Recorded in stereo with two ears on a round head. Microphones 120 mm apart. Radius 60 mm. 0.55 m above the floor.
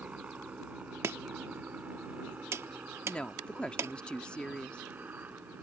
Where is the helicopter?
10° right (ahead or behind); by 5.6 s 15° right (ahead or behind).